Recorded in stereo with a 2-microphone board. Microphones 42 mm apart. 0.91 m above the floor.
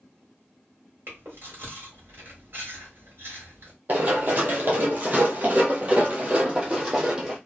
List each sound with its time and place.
1.1 s chewing: 65° right (ahead or behind), 1.9 m
3.9 s running footsteps: 40° right (ahead or behind), 1.4 m; by 7.4 s 15° right (ahead or behind), 1.6 m